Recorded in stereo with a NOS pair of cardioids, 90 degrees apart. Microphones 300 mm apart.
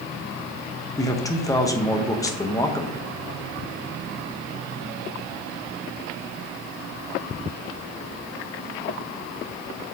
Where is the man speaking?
10° left, 1.0 m.